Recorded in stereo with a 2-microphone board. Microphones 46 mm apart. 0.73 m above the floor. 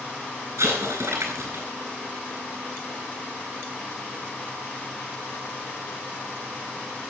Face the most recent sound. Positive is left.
turn(degrees=-80)